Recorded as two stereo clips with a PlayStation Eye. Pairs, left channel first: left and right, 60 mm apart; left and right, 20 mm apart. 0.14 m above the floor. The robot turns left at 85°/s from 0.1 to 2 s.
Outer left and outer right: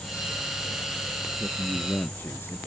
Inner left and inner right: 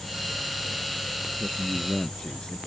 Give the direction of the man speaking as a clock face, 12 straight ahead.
6 o'clock.